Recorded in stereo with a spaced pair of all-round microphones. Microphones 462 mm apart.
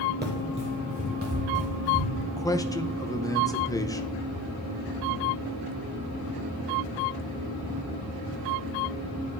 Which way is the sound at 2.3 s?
10° left (ahead or behind).